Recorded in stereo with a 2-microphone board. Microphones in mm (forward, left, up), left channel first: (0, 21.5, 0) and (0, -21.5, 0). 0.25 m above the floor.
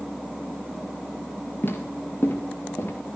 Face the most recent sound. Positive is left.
turn(degrees=60)  # may be behind; listen again after turning